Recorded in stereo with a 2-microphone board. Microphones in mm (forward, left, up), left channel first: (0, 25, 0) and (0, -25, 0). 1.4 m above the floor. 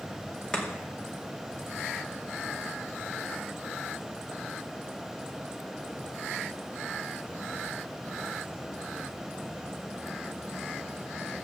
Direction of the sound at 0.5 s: 15° left (ahead or behind).